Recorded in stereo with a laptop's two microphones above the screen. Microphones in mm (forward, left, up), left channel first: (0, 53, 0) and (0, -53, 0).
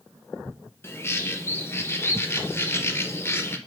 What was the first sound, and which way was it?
A bird, 25° left (ahead or behind).